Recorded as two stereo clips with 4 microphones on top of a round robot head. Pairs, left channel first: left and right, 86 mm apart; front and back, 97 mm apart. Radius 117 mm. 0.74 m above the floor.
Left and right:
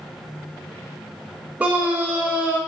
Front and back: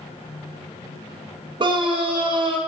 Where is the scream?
160° right, 0.7 m.